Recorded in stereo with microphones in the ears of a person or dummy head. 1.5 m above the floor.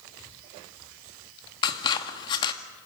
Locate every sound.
1.6 s scissors: 25° left (ahead or behind), 1.9 m